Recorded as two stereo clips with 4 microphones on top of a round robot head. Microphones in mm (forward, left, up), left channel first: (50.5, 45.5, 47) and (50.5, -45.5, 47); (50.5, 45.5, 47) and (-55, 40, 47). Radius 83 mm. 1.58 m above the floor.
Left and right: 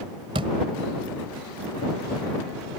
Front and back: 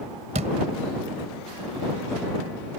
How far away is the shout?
No shout in this recording.